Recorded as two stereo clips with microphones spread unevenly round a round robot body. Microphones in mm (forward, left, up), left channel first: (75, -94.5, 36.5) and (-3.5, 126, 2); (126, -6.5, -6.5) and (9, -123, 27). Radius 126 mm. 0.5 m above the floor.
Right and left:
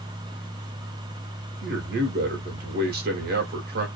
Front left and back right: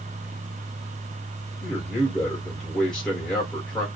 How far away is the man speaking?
About 1.1 m.